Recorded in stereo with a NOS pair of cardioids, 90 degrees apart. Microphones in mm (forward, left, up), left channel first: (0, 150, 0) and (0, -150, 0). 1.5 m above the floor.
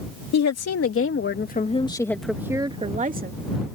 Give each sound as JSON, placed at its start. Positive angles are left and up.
{"t": 0.3, "sound": "a woman speaking", "azimuth_deg": 55}